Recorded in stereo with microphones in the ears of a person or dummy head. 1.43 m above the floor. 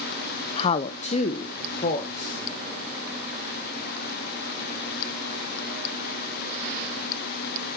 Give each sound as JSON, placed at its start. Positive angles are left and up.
{"t": 0.6, "sound": "a woman speaking", "side_deg": 35, "distance_m": 0.5}